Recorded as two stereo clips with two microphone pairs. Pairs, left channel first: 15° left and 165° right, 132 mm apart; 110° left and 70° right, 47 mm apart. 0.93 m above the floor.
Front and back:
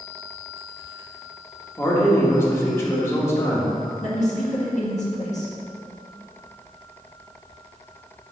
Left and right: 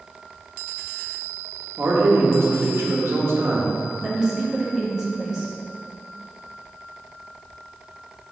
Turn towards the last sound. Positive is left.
turn(degrees=5)